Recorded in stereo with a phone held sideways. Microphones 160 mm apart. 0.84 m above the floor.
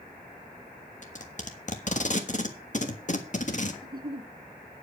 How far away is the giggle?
About 1.2 m.